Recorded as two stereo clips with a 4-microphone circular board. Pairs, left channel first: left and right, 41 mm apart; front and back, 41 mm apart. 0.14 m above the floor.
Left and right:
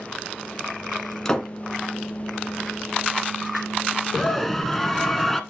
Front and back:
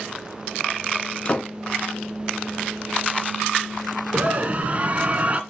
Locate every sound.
1.2 s a door slam: 25° left, 1.3 m
4.1 s a scream: 170° left, 1.4 m